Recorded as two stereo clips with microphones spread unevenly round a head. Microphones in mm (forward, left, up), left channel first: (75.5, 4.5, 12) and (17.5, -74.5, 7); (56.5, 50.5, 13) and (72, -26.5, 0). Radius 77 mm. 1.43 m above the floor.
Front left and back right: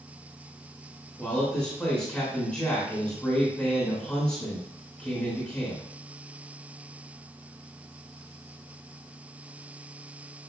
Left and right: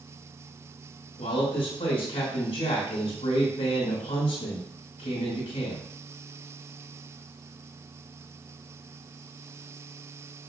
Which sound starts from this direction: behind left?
A man speaking, at 1.2 s.